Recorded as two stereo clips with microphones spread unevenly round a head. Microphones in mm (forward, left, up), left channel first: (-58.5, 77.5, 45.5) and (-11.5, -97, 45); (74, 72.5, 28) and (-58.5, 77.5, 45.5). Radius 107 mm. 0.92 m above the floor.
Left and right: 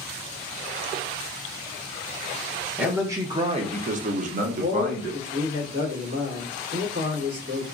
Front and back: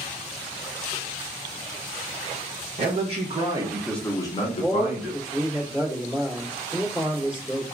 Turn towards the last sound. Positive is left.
turn(degrees=-95)